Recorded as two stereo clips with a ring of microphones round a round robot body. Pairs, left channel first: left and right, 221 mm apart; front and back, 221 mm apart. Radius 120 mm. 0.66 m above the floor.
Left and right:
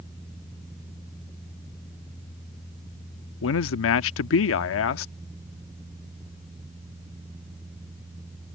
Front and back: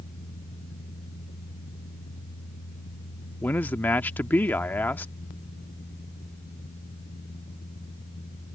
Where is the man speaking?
80° left.